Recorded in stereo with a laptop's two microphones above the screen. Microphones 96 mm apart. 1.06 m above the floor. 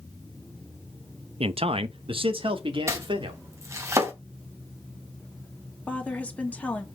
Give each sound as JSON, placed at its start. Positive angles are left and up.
{"t": 1.4, "sound": "a man speaking", "side_deg": -75, "distance_m": 0.6}
{"t": 2.9, "sound": "chopping", "side_deg": -30, "distance_m": 3.0}
{"t": 5.9, "sound": "a woman speaking", "side_deg": 15, "distance_m": 2.5}